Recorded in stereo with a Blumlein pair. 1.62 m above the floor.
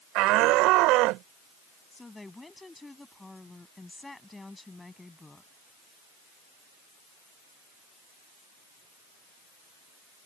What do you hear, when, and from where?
0.1 s a shout: 40° right
1.9 s a woman speaking: 5° left